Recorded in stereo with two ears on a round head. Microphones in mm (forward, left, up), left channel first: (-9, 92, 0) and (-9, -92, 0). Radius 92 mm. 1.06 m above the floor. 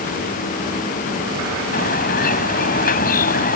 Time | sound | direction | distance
1.7 | a bird | 45° left (ahead or behind) | ?